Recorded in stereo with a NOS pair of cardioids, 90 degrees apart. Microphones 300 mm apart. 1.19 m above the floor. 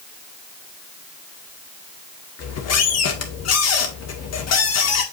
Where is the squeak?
60° left, 1.8 m.